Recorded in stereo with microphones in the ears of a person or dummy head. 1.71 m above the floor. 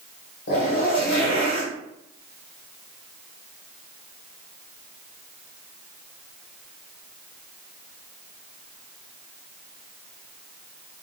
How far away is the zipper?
About 1.3 m.